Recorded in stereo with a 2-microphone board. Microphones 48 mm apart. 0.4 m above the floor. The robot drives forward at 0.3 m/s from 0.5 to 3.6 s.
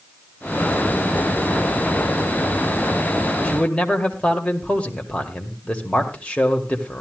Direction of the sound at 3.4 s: 25° left (ahead or behind).